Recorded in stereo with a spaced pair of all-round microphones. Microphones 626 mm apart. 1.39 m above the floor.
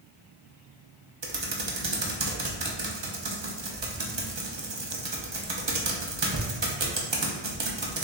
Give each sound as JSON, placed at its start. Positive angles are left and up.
{"t": 1.2, "sound": "typing on a keyboard", "side_deg": -45, "distance_m": 0.7}